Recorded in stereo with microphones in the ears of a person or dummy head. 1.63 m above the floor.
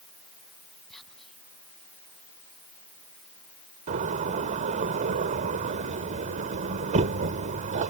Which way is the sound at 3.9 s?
40° right (ahead or behind).